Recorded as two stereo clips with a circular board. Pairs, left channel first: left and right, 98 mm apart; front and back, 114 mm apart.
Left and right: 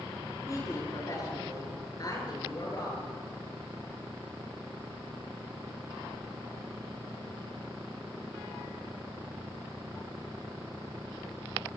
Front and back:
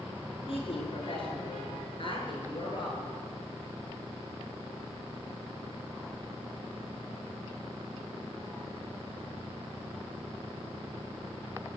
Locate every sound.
0.5 s a woman speaking: 35° left, 7.5 m; by 3.1 s 45° left, 9 m